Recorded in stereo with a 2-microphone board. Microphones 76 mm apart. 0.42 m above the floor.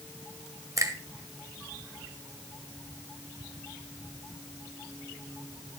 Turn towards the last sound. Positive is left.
turn(degrees=-45)  # may be behind; listen again after turning